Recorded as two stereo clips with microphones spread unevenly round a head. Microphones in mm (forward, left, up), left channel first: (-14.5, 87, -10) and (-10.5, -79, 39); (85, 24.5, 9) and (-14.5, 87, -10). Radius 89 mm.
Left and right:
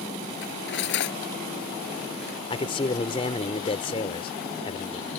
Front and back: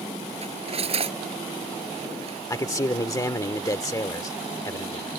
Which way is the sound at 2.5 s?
25° left.